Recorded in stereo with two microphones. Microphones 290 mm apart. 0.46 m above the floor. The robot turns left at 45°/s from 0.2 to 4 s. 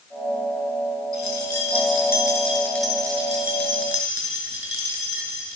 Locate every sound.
1.1 s keys jangling: 75° left (ahead or behind), 5.5 m; by 5.6 s 50° right (ahead or behind), 5.5 m